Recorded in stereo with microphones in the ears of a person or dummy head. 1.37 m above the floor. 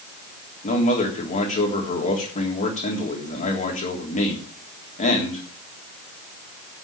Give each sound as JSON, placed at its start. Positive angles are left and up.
{"t": 0.6, "sound": "a man speaking", "side_deg": 40, "distance_m": 3.5}